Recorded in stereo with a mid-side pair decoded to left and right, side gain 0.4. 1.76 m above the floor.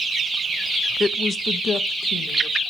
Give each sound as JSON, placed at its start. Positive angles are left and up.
{"t": 1.0, "sound": "a woman speaking", "azimuth_deg": 30, "distance_m": 0.6}